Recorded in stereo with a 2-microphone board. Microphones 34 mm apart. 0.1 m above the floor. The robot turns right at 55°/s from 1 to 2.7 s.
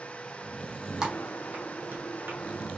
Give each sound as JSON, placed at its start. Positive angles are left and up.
{"t": 1.0, "sound": "typing on a keyboard", "side_deg": -20, "distance_m": 1.5}